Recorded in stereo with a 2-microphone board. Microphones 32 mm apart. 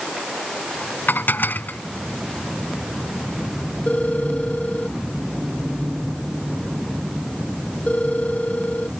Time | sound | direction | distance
1.1 | dishes clattering | 85° left | ?
3.9 | a phone ringing | 50° left (ahead or behind) | ?